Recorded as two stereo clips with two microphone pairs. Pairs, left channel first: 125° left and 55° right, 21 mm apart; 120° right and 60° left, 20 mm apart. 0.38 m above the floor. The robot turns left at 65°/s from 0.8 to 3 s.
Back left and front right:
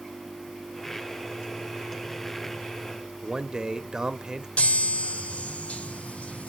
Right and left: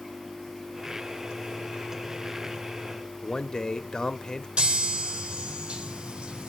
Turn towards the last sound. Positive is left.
turn(degrees=90)